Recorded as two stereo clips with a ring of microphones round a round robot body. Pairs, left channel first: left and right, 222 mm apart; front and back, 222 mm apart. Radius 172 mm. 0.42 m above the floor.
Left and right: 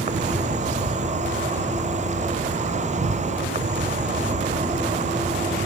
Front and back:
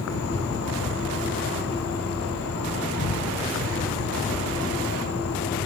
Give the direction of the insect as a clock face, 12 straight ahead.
1 o'clock.